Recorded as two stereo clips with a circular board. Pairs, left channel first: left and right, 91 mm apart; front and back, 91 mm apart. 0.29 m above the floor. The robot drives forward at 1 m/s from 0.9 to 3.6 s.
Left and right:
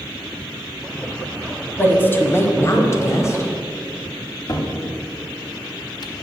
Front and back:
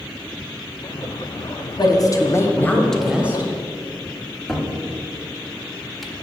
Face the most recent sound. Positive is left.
turn(degrees=90)